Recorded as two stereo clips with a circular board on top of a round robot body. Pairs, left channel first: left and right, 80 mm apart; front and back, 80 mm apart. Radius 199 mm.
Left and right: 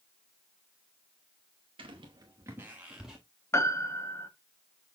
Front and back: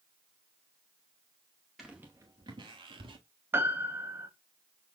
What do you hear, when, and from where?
1.8 s footsteps: 90° right, 0.6 m; by 3.2 s 175° right, 1.0 m
3.5 s a piano: 130° left, 1.5 m